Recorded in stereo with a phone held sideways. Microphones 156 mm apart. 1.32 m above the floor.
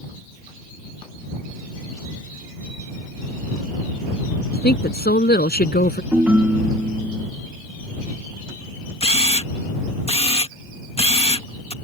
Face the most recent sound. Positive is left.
turn(degrees=40)  # may be behind; listen again after turning